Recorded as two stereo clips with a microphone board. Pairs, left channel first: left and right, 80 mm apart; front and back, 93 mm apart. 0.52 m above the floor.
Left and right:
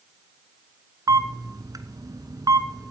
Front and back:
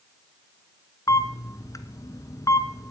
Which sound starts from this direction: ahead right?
A camera shutter, at 1.1 s.